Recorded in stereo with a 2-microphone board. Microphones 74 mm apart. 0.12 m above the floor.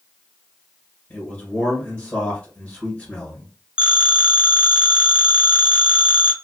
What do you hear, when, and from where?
1.1 s a man speaking: 15° left (ahead or behind), 1.6 m
3.8 s a phone ringing: 15° right (ahead or behind), 0.7 m